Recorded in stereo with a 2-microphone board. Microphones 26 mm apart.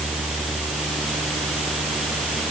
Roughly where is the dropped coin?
No dropped coin in this recording.